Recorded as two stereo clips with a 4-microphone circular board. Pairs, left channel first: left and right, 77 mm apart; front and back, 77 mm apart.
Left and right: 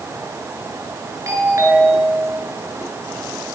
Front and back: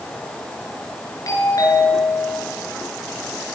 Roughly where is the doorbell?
Ahead right.